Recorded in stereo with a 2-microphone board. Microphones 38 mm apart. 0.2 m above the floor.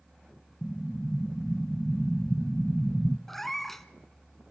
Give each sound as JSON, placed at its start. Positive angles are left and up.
{"t": 0.6, "sound": "an explosion", "side_deg": 20, "distance_m": 0.7}
{"t": 3.3, "sound": "a cat meowing", "side_deg": 5, "distance_m": 0.9}